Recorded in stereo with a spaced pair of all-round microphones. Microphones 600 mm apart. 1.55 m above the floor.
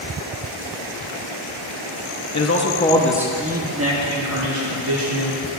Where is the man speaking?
30° left (ahead or behind), 0.7 m; by 5.4 s 50° right (ahead or behind), 1.5 m.